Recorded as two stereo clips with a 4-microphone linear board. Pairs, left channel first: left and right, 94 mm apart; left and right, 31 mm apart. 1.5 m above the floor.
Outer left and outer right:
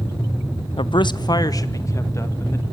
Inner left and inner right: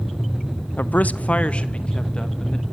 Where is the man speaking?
65° left (ahead or behind), 0.7 m; by 2.6 s 30° left (ahead or behind), 2 m.